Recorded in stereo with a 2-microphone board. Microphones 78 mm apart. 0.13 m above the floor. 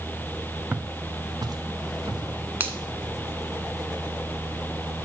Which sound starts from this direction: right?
A finger snap, at 2.6 s.